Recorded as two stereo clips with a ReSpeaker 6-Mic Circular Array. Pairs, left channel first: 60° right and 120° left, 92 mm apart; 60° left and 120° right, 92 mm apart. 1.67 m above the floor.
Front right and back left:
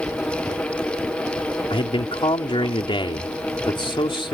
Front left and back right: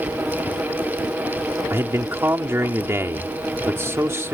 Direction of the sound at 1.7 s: 60° right.